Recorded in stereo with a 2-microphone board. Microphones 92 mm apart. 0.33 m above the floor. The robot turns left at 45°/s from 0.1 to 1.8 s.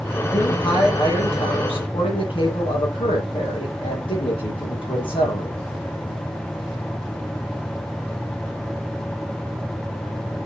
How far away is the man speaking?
About 8.5 m.